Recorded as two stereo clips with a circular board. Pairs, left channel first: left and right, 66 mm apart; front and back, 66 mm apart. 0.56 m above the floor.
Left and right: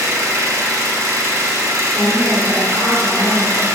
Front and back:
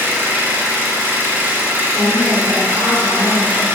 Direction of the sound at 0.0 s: 125° right.